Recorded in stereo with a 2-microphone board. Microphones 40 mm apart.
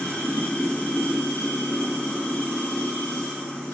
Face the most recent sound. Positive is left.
turn(degrees=75)  # may be behind; listen again after turning